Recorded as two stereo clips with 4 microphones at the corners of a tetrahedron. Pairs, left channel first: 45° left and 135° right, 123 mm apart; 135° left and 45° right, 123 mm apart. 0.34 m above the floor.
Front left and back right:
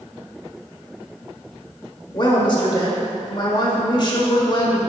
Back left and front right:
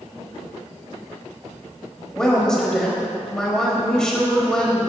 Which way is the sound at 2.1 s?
55° left.